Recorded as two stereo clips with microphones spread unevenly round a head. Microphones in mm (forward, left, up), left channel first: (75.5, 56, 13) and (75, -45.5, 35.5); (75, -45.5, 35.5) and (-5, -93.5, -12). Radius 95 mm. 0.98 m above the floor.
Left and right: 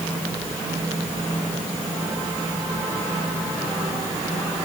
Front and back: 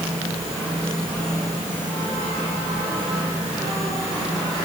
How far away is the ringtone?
No ringtone in this recording.